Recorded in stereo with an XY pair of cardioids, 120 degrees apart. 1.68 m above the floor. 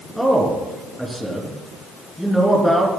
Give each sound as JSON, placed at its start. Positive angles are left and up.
{"t": 0.2, "sound": "a man speaking", "azimuth_deg": -5, "distance_m": 3.5}